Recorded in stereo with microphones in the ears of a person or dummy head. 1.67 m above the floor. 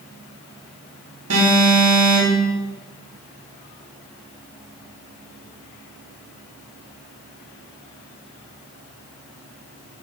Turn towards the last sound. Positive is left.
turn(degrees=-80)